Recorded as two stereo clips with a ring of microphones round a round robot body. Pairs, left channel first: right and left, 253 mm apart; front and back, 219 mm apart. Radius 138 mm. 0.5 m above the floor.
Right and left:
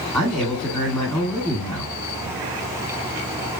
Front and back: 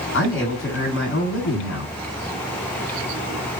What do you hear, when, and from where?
0.1 s a man speaking: 5° right, 2.5 m